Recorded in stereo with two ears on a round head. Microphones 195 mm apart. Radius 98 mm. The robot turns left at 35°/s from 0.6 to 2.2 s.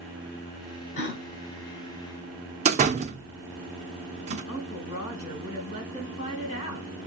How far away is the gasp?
About 1.2 m.